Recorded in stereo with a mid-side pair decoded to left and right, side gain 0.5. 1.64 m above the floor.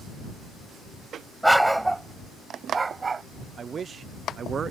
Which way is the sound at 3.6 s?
45° right.